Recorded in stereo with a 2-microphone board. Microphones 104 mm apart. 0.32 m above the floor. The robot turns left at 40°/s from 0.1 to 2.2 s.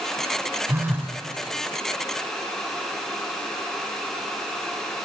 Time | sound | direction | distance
0.7 | a phone buzzing | 20° right (ahead or behind) | 1.0 m